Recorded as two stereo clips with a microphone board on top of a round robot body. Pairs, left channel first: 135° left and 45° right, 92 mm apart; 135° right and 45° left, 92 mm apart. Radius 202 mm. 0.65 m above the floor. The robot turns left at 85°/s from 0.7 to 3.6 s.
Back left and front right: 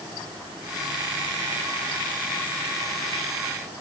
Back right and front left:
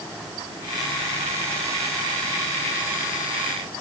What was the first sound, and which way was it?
Only background noise.